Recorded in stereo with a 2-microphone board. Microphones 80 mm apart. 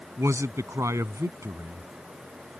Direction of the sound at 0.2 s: 40° right (ahead or behind).